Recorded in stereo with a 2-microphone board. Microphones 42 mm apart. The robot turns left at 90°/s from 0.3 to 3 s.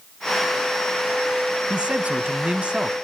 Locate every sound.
1.7 s a man speaking: 40° right, 1.4 m; by 2.9 s 150° right, 1.4 m